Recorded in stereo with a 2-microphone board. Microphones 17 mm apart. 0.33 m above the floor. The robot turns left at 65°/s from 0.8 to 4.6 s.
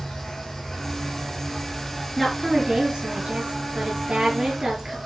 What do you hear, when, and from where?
0.0 s an insect: 115° left, 6 m; by 5.1 s 130° right, 6 m
2.2 s a woman speaking: 5° left, 5 m; by 5.0 s 155° right, 5 m